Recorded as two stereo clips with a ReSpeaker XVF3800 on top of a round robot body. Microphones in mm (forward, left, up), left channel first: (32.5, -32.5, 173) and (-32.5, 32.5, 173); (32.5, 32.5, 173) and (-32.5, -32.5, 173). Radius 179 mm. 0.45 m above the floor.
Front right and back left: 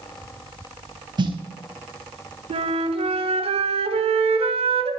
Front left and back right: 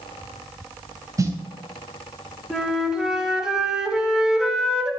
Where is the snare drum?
170° left, 3 m.